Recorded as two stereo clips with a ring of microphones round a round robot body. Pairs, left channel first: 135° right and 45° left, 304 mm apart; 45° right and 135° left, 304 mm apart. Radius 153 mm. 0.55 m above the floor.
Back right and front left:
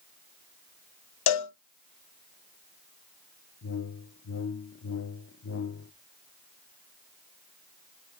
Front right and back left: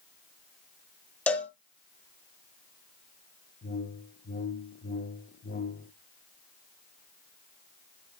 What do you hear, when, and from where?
1.3 s a cowbell: 130° right, 1.2 m
3.6 s a whoosh: 100° right, 0.6 m